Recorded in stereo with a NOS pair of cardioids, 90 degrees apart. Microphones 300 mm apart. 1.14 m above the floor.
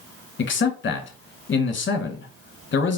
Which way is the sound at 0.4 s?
40° left.